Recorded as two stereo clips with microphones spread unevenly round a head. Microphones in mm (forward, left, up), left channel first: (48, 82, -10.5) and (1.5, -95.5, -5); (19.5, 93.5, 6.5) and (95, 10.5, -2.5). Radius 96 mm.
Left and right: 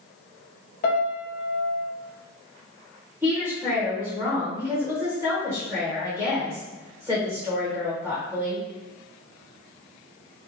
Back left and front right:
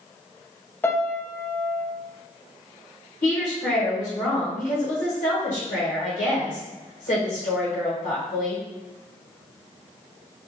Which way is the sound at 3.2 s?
175° left.